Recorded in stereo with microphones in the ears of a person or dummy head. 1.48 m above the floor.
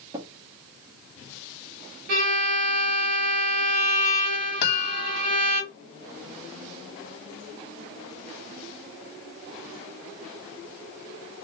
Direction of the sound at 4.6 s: 55° left (ahead or behind).